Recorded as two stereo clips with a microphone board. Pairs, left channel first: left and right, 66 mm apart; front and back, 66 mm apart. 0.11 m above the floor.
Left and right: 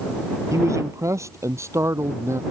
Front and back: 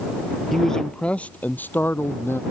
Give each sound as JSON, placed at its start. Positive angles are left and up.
{"t": 0.5, "sound": "a man speaking", "azimuth_deg": -85}